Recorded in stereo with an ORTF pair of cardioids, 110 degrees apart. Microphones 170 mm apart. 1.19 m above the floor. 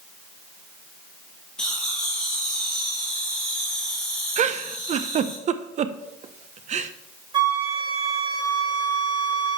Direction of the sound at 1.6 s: 5° left.